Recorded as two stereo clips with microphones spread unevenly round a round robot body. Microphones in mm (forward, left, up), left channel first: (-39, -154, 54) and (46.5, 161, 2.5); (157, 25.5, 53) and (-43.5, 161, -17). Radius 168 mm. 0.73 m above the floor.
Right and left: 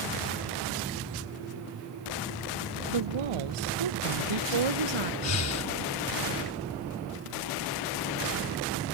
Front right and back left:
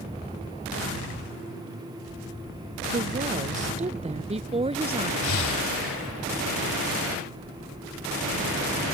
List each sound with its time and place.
2.9 s a woman speaking: 90° left; by 5.1 s 75° left
5.2 s breathing: 60° right